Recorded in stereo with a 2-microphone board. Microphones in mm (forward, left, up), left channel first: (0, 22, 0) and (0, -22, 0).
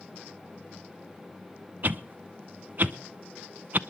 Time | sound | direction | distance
1.8 | a whoosh | 45° right (ahead or behind) | 0.6 m